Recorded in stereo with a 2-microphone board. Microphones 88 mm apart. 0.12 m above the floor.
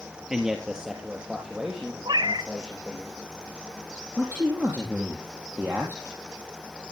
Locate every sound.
0.3 s a man speaking: 10° right (ahead or behind), 1.9 m; by 3.0 s 5° right (ahead or behind), 5 m
2.0 s a cat meowing: 70° right (ahead or behind), 1.1 m
4.2 s a man speaking: 25° right (ahead or behind), 3.5 m